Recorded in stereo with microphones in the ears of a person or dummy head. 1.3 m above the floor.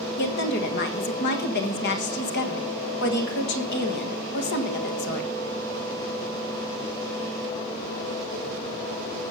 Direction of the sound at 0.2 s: 55° left (ahead or behind).